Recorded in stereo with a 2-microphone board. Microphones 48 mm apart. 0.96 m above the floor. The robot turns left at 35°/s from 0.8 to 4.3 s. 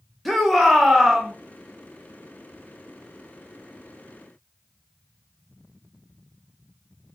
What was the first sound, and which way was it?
A shout, centre (ahead or behind).